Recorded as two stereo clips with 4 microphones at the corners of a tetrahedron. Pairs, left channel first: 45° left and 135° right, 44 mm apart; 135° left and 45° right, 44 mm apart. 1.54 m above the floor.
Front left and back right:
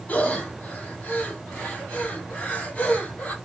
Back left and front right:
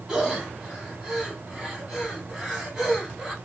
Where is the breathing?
20° left, 1.4 m.